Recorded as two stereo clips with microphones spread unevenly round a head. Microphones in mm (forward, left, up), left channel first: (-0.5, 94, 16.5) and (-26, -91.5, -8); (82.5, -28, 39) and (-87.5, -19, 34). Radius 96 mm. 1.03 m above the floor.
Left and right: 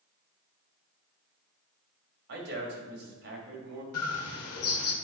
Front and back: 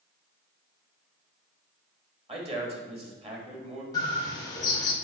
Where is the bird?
70° left, 1.1 m.